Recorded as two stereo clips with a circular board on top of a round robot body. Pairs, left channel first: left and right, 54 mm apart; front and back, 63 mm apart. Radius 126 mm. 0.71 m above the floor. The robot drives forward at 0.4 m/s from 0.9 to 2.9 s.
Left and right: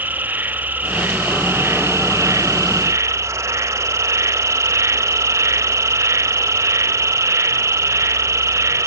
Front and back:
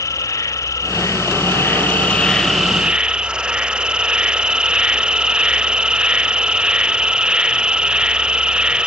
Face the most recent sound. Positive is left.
turn(degrees=-105)